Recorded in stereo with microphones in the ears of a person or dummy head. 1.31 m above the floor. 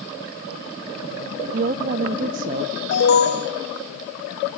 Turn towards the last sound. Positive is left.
turn(degrees=60)  # may be behind; listen again after turning